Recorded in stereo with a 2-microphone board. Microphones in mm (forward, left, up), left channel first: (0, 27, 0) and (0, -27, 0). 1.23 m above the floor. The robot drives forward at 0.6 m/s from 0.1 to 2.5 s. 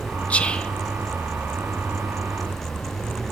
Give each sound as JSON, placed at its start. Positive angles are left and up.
{"t": 0.3, "sound": "whispering", "side_deg": 25, "distance_m": 0.5}